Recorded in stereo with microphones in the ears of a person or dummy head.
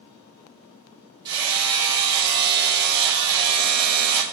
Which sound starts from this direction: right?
Hammering, at 1.2 s.